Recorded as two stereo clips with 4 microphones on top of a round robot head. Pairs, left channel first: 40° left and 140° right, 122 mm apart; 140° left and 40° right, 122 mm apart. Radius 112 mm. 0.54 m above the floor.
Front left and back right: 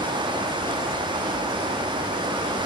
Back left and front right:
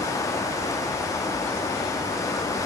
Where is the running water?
165° right, 0.8 m.